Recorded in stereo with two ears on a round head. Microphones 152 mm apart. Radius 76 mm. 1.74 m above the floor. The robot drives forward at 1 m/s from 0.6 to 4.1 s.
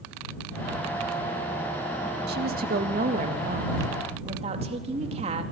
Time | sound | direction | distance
2.3 | a woman speaking | 65° right (ahead or behind) | 2.5 m